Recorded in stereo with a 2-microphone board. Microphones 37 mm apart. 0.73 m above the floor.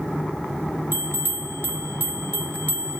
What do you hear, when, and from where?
0.9 s a bell: 60° right (ahead or behind), 0.9 m